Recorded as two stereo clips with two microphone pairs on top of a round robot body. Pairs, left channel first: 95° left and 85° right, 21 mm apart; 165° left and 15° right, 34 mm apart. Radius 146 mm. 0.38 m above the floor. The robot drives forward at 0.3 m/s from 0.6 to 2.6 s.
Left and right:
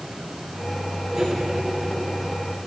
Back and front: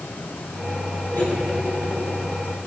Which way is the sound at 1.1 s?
155° right.